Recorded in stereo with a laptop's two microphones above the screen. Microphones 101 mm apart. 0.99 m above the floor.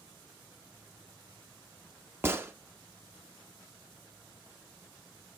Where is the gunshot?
25° right (ahead or behind), 0.6 m.